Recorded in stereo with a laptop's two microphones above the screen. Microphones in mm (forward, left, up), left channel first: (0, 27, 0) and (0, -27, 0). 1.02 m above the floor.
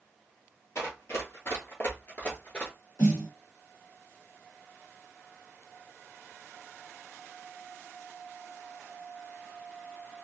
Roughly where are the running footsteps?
Left.